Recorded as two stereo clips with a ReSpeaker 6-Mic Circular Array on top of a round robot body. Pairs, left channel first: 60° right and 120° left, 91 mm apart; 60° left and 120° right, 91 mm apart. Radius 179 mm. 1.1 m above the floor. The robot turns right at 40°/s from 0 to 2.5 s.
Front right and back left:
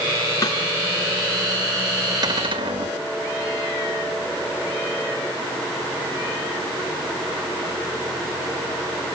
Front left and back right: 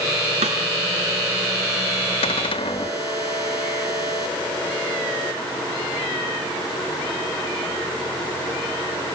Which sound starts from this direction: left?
A cupboard door, at 2.2 s.